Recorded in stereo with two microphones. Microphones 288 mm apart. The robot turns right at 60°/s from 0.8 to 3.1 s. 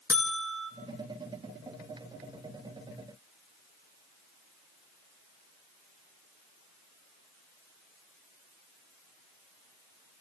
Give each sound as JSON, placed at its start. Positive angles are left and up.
{"t": 0.1, "sound": "a buzzer", "side_deg": 50, "distance_m": 1.2}